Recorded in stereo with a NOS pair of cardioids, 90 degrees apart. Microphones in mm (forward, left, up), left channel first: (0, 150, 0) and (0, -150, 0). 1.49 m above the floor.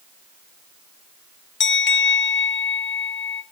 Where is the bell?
35° left, 1.6 m.